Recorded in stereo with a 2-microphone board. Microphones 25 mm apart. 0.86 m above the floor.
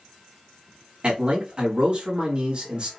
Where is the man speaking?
40° right (ahead or behind), 1.5 m.